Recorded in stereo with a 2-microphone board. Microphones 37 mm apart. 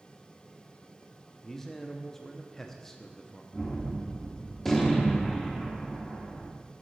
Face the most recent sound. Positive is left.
turn(degrees=5)  # may be behind; listen again after turning